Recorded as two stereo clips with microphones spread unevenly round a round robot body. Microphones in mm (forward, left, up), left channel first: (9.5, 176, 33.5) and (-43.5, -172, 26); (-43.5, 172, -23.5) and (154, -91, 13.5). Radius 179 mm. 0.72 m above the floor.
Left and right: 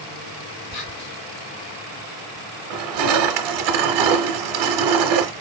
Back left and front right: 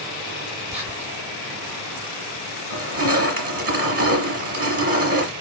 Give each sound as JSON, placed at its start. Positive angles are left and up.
{"t": 0.7, "sound": "whispering", "azimuth_deg": 30, "distance_m": 2.0}
{"t": 2.7, "sound": "crushing", "azimuth_deg": -115, "distance_m": 1.0}